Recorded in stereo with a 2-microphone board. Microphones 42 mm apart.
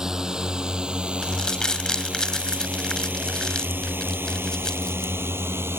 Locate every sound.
0.0 s a drone: 15° right (ahead or behind); by 5.8 s 85° right
1.2 s crumpling: 15° left (ahead or behind)